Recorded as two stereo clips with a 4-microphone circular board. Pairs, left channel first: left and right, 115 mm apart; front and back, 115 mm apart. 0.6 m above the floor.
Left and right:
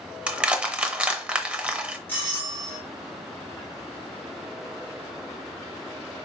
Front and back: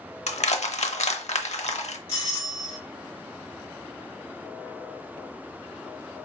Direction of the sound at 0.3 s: 10° right.